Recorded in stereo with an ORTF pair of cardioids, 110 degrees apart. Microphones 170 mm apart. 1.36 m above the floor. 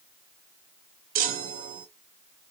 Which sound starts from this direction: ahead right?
A chime, at 1.1 s.